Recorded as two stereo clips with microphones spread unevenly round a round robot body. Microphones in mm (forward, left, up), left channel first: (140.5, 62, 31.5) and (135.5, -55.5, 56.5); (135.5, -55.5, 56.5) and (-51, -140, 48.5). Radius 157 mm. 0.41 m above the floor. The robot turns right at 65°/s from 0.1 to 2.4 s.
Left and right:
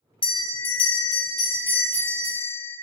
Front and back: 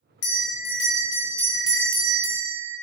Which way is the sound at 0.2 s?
55° left.